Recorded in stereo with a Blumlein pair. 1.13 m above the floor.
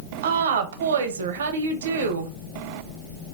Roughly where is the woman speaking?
Ahead right.